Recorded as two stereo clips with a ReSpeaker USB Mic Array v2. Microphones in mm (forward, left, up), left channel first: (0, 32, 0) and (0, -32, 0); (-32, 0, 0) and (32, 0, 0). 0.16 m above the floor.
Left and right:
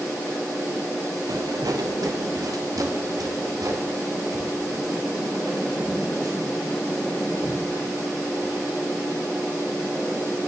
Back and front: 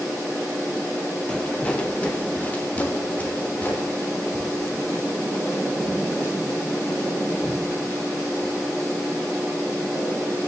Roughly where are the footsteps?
Right.